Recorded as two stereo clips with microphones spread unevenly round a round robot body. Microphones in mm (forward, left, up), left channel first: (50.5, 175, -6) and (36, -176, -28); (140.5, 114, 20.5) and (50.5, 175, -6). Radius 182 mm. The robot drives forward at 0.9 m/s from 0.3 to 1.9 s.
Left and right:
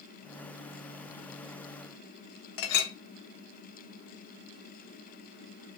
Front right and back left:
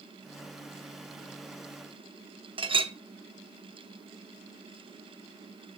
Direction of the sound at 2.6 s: 105° left.